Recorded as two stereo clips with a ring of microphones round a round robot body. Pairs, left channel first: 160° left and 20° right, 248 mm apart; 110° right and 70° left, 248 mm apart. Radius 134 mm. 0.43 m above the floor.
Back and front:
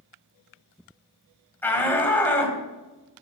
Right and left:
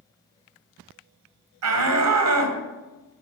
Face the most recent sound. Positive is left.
turn(degrees=75)